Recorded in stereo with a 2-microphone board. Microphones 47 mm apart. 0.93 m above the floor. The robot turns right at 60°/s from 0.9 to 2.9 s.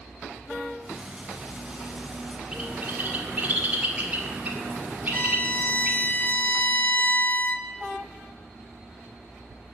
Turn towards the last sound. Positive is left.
turn(degrees=45)  # may be behind; listen again after turning